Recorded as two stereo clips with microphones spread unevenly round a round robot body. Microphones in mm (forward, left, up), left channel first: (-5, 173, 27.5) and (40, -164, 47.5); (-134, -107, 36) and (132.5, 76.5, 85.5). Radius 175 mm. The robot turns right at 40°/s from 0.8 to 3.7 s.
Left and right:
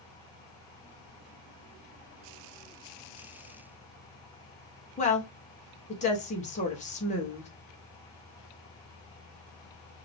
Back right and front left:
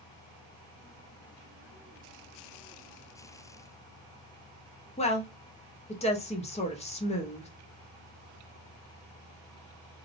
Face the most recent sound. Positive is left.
turn(degrees=160)